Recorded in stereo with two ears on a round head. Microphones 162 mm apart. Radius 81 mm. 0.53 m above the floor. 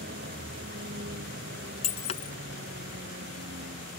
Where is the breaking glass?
40° left (ahead or behind).